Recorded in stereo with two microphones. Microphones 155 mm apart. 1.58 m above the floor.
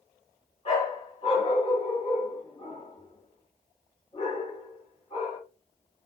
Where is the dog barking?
40° left (ahead or behind), 2.0 m.